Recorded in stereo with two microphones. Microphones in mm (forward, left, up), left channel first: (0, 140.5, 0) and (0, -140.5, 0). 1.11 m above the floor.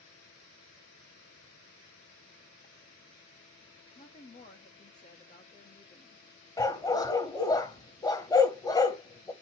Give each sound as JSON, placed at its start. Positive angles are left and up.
{"t": 4.0, "sound": "a woman speaking", "side_deg": 25, "distance_m": 1.9}
{"t": 6.6, "sound": "a dog barking", "side_deg": 15, "distance_m": 1.5}